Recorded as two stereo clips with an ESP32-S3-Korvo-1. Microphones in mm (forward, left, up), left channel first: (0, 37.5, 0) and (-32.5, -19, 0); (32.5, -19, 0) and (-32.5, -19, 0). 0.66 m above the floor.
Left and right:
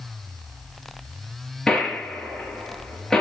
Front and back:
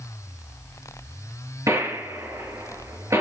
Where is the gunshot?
145° left, 5 m.